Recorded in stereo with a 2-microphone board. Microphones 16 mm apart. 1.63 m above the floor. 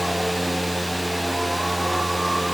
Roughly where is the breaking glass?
I don't hear breaking glass.